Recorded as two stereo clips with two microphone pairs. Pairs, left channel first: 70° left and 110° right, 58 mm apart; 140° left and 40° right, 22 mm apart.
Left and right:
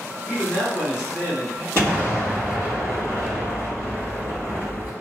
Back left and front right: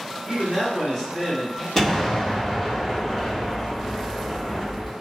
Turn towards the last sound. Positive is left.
turn(degrees=-145)